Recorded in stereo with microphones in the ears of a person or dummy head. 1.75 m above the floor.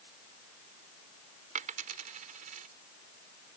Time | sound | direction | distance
1.6 | a dropped coin | 40° right (ahead or behind) | ?